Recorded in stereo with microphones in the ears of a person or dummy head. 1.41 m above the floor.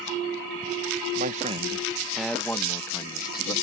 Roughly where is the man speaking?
Right.